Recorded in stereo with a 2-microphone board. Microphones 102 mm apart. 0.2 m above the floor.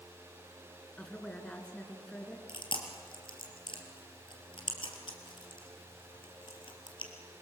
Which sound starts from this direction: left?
Chewing, at 2.5 s.